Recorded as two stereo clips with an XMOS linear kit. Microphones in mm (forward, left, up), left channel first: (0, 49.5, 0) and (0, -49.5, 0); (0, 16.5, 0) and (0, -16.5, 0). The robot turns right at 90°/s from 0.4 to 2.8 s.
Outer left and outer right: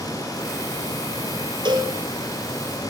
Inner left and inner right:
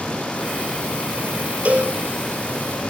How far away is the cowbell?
About 2.5 m.